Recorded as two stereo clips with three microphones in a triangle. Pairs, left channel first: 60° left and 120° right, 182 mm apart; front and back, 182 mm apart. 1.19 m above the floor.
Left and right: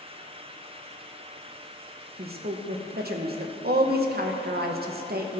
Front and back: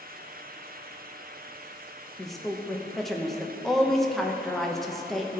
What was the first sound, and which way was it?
A woman speaking, 90° right.